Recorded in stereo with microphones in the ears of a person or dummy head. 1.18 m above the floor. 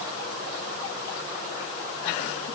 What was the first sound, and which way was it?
Only background noise.